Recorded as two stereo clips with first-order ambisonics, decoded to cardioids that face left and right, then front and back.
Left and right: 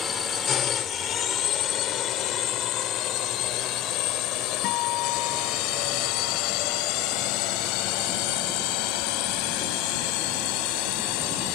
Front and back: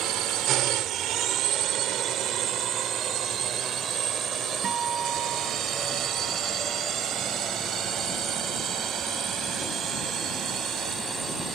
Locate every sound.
0.0 s a drone: 150° left; by 11.6 s 100° left
4.6 s a guitar: 120° left